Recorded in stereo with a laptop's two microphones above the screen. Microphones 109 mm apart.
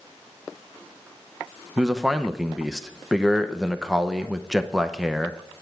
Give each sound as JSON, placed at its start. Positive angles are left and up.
{"t": 1.8, "sound": "a man speaking", "side_deg": 0, "distance_m": 0.7}